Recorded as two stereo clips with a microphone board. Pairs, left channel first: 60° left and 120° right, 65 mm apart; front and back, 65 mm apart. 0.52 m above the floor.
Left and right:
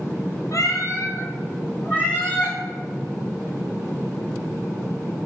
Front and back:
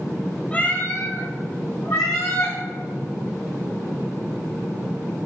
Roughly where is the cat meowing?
Ahead left.